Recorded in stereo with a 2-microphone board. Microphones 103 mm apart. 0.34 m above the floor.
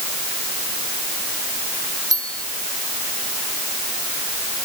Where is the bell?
35° right (ahead or behind).